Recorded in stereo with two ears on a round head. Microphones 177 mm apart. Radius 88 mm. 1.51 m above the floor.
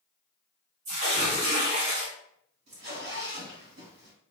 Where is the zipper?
60° right (ahead or behind), 1.9 m.